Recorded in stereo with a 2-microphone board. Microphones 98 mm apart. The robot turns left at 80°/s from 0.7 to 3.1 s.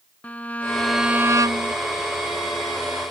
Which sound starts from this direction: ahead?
A violin, at 0.2 s.